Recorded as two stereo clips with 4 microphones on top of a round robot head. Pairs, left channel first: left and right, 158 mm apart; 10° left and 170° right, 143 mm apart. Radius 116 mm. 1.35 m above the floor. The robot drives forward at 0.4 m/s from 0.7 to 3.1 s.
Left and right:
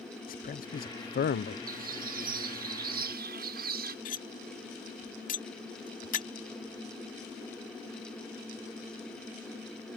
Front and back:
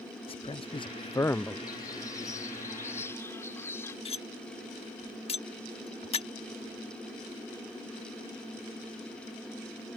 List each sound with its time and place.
0.3 s a man speaking: 60° left; by 1.6 s 95° left
1.7 s a bird: 60° right; by 4.0 s 70° right
4.0 s cutlery clinking: 55° left